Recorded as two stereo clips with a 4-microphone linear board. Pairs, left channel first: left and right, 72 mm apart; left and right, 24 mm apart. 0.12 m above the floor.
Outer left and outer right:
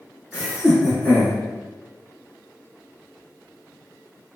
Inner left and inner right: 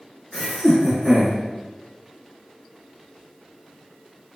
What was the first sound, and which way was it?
Laughter, 5° right (ahead or behind).